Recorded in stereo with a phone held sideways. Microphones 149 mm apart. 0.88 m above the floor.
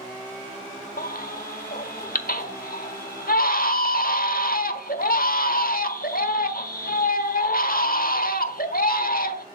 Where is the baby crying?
75° left (ahead or behind), 1.2 m.